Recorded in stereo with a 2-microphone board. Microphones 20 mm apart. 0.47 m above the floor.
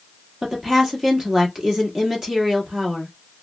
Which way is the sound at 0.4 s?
25° right (ahead or behind).